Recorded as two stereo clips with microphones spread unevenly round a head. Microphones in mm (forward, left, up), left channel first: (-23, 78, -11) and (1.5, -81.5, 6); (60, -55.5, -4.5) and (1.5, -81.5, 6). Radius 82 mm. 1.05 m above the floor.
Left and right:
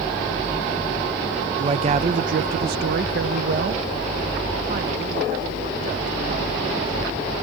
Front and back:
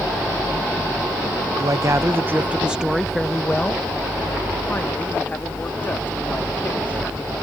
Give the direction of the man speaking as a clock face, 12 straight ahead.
5 o'clock.